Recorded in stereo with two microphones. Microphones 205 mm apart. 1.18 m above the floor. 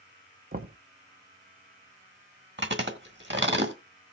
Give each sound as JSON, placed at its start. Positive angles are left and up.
{"t": 0.5, "sound": "knocking", "side_deg": -50, "distance_m": 0.6}
{"t": 2.6, "sound": "chewing", "side_deg": -65, "distance_m": 1.6}